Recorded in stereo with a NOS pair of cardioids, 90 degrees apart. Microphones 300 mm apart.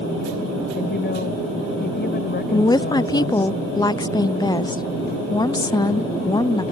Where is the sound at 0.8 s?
35° left.